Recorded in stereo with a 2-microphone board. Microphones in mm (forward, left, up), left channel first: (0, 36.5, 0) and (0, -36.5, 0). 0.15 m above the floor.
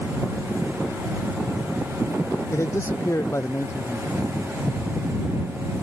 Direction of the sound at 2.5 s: 40° left (ahead or behind).